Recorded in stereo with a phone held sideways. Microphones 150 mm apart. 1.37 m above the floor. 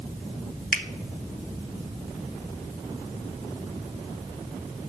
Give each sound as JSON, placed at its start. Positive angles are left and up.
{"t": 0.7, "sound": "a finger snap", "side_deg": 65, "distance_m": 1.0}